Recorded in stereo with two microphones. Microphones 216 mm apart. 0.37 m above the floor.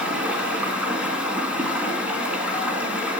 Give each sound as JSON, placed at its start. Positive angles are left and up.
{"t": 0.0, "sound": "running water", "side_deg": -5, "distance_m": 2.5}